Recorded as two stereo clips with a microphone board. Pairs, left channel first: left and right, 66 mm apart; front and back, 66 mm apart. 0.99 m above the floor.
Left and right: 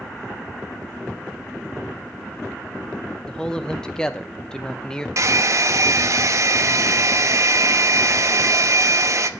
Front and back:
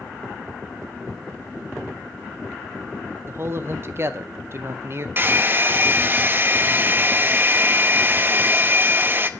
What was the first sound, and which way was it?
A man speaking, 160° left.